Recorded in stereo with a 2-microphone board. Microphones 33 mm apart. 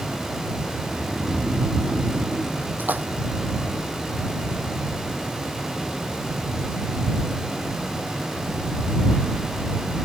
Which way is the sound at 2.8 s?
70° right (ahead or behind).